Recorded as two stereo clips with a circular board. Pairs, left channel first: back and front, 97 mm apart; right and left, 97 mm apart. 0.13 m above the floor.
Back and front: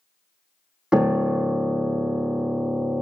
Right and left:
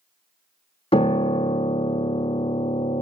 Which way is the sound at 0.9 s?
80° right.